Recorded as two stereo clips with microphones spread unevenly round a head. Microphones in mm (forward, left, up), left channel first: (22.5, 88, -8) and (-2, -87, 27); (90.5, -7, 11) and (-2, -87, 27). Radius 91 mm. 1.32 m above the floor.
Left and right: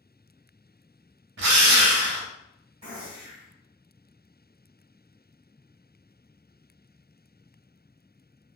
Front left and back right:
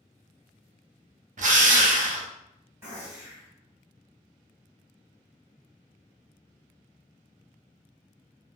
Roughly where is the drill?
Behind right.